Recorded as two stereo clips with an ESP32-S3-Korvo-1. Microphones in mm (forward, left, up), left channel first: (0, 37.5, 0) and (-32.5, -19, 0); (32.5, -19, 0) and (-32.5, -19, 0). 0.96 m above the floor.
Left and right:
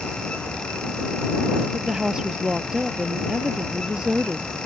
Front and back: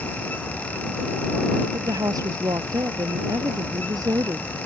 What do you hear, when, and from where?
1.7 s a woman speaking: 160° left